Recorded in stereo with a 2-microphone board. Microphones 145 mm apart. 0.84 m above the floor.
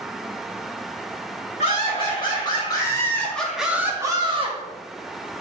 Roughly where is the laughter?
Left.